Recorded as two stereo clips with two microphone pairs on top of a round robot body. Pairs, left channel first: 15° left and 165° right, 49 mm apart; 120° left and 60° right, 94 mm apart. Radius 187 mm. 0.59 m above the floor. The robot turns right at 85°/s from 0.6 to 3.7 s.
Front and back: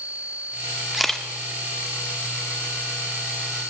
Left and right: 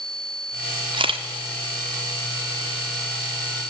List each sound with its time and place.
0.9 s a camera shutter: 85° right, 1.4 m; by 1.2 s 60° right, 1.4 m